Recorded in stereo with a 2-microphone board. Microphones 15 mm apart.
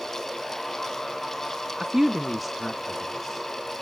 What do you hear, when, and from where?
1.8 s a woman speaking: 40° right (ahead or behind), 1.0 m; by 3.5 s 20° left (ahead or behind), 2.5 m